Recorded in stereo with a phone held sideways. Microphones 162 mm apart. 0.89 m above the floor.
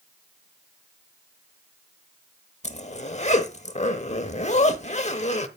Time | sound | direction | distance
2.6 | a zipper | 45° left (ahead or behind) | 0.8 m